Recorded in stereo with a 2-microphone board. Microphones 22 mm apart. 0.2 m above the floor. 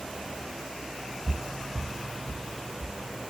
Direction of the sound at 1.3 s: 50° right (ahead or behind).